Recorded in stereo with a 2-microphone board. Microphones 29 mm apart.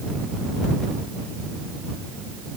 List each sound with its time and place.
Only background noise.